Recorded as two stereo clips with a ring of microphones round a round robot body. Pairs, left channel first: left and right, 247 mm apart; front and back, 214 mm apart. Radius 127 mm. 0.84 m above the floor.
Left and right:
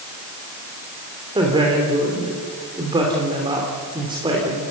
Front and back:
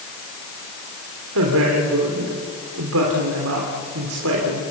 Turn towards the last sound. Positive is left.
turn(degrees=-160)